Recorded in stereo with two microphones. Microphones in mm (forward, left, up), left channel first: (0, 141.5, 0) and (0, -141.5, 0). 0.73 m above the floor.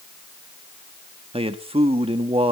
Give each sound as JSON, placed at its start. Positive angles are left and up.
{"t": 1.3, "sound": "a man speaking", "side_deg": -20, "distance_m": 1.5}